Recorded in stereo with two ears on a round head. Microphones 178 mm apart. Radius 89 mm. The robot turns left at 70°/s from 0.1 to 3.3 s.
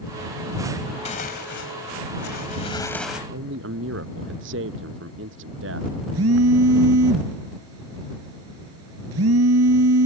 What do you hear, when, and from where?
1.1 s tearing paper: 145° left; by 3.2 s 5° right
3.3 s a man speaking: 65° right (ahead or behind)
6.1 s a phone buzzing: 80° right